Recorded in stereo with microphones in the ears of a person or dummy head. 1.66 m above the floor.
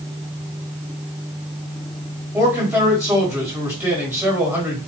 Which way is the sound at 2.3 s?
10° right (ahead or behind).